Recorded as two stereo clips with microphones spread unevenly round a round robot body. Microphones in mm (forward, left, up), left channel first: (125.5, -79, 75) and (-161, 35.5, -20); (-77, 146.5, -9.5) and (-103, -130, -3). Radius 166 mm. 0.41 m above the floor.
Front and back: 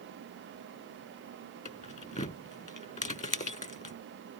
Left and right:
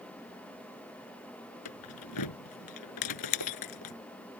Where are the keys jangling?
50° left.